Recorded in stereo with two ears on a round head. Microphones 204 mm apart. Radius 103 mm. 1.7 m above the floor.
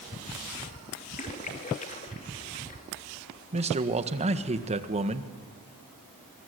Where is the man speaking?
30° right (ahead or behind), 1.7 m.